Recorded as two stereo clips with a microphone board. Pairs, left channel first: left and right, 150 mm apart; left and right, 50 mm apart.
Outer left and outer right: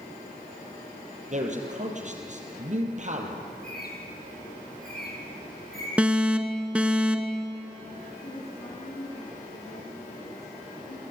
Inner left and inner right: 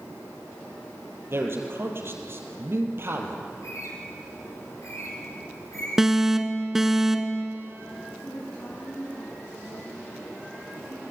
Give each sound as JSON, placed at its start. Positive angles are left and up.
{"t": 1.3, "sound": "a man speaking", "side_deg": -50, "distance_m": 4.5}
{"t": 3.5, "sound": "a bird", "side_deg": 75, "distance_m": 5.0}
{"t": 6.0, "sound": "an alarm", "side_deg": -5, "distance_m": 1.5}
{"t": 8.2, "sound": "a woman speaking", "side_deg": 75, "distance_m": 9.5}